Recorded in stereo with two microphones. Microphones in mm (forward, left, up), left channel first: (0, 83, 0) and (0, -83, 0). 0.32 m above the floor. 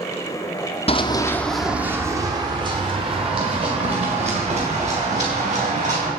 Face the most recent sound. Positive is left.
turn(degrees=-45)  # may be behind; listen again after turning